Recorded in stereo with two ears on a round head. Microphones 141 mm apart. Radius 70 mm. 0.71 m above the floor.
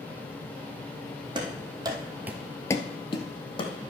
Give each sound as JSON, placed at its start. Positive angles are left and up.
{"t": 1.4, "sound": "running footsteps", "side_deg": -30, "distance_m": 1.9}